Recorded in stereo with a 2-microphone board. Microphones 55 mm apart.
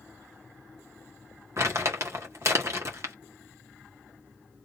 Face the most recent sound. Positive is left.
turn(degrees=-55)  # may be behind; listen again after turning